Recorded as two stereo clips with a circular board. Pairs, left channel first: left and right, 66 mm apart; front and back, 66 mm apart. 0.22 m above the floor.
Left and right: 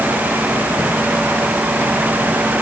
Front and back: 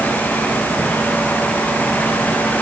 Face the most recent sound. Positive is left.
No sound to turn to.